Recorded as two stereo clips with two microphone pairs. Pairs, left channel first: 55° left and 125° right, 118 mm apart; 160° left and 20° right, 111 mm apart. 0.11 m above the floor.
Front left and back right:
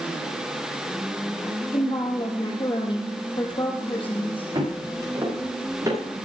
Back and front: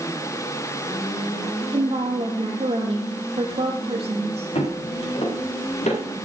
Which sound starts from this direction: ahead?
A woman speaking, at 1.7 s.